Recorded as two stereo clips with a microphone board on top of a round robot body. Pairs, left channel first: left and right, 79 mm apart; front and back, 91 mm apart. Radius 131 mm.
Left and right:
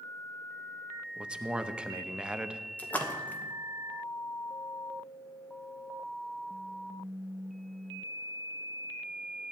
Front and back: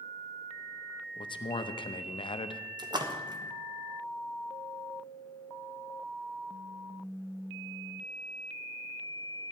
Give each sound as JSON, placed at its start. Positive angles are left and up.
{"t": 1.2, "sound": "a man speaking", "azimuth_deg": -15, "distance_m": 1.0}
{"t": 2.8, "sound": "a splash", "azimuth_deg": 155, "distance_m": 1.4}